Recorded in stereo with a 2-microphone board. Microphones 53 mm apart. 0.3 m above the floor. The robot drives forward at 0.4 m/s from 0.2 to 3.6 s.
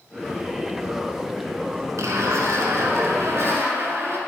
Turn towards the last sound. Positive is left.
turn(degrees=-50)  # may be behind; listen again after turning